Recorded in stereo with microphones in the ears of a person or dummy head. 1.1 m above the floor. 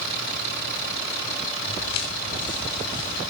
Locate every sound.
1.7 s footsteps: 30° left (ahead or behind), 9 m; by 3.2 s 35° left (ahead or behind), 11.5 m